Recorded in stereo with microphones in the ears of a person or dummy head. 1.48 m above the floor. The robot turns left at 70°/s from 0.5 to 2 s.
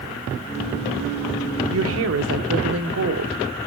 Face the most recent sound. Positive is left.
turn(degrees=-75)  # may be behind; listen again after turning